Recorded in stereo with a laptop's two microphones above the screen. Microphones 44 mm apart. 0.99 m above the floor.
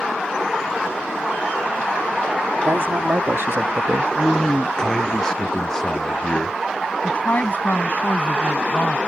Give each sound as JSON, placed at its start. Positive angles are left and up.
{"t": 2.6, "sound": "a man speaking", "side_deg": -75}
{"t": 4.2, "sound": "a man speaking", "side_deg": 15}
{"t": 7.0, "sound": "a woman speaking", "side_deg": 45}